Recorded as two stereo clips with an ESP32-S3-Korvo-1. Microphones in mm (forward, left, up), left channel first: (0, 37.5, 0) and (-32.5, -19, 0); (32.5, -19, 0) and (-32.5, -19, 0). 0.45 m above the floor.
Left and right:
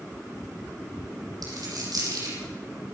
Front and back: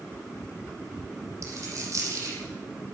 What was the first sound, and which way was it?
A dropped coin, 140° right.